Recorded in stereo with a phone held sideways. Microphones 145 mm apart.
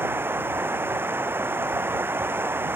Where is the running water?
15° right (ahead or behind).